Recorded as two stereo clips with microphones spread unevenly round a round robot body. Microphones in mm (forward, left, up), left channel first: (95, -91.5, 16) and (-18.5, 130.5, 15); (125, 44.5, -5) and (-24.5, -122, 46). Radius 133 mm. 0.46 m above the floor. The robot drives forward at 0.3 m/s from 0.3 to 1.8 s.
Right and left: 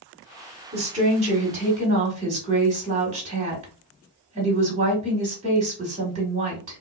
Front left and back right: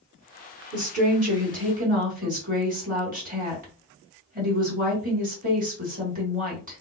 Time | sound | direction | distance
0.7 | a woman speaking | 170° left | 1.7 m